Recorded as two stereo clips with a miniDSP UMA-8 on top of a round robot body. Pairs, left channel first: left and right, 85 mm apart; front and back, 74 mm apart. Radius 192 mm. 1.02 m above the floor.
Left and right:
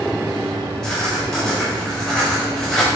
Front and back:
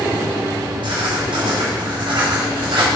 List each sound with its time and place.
0.8 s writing: 175° left, 1.8 m